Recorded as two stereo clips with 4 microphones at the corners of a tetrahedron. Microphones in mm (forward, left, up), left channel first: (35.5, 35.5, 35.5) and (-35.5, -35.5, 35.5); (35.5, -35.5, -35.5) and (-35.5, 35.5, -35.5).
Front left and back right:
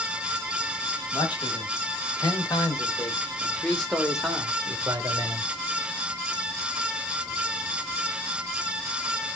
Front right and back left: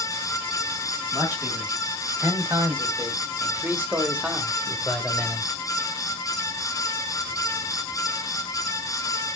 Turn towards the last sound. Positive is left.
turn(degrees=-130)